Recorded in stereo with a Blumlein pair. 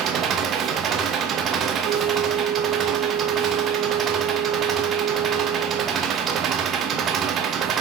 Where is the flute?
25° right, 0.8 m.